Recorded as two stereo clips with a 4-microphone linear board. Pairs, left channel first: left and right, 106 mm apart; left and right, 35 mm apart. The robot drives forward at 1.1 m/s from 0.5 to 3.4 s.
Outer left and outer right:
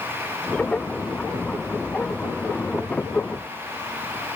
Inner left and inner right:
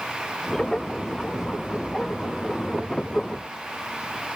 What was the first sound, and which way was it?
Only background noise.